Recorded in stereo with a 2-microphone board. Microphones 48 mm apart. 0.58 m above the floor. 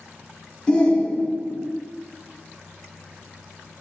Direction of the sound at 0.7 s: 20° left (ahead or behind).